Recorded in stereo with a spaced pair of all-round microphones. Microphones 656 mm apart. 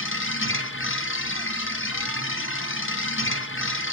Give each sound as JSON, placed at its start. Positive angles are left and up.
{"t": 0.0, "sound": "a machine running", "side_deg": 20, "distance_m": 0.7}